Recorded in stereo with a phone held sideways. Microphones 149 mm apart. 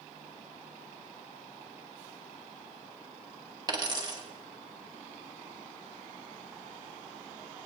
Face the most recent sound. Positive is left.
turn(degrees=-30)  # may be behind; listen again after turning